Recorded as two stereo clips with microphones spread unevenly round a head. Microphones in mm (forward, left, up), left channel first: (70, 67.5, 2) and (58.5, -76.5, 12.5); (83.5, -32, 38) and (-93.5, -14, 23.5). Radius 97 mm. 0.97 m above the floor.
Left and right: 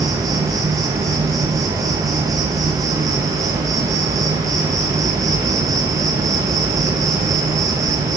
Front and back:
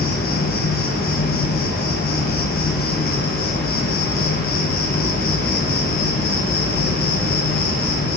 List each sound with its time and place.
0.0 s an insect: 30° right, 1.4 m